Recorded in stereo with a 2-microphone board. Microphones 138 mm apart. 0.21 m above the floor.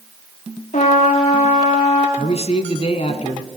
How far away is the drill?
I don't hear a drill.